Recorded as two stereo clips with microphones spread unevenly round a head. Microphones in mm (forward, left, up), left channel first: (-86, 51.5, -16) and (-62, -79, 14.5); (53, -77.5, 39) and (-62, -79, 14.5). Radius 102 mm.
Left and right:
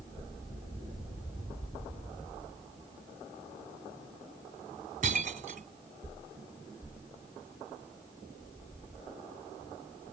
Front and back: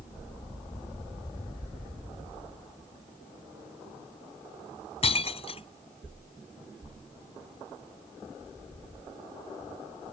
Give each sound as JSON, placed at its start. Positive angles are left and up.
{"t": 5.0, "sound": "breaking glass", "azimuth_deg": -30}